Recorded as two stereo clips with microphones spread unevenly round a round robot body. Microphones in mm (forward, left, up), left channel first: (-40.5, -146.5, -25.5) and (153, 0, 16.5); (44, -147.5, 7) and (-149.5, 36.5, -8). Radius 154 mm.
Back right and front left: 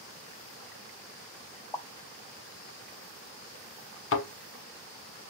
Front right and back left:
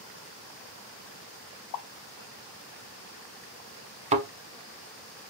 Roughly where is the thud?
Behind.